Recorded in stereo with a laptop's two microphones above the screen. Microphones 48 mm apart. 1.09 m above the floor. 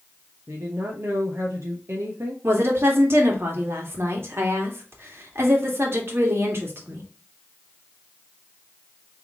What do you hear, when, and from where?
0.5 s a woman speaking: 65° right (ahead or behind), 1.1 m
2.4 s a woman speaking: 55° right (ahead or behind), 2 m